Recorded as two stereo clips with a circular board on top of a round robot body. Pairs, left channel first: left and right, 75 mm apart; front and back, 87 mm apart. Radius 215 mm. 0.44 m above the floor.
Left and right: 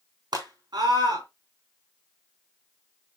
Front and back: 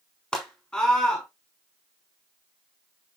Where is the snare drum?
I don't hear a snare drum.